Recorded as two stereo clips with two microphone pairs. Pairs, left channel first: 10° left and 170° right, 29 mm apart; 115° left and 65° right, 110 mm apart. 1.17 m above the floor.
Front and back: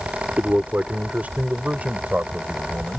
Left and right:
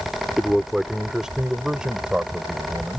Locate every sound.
0.4 s a man speaking: 155° right; by 3.0 s 140° right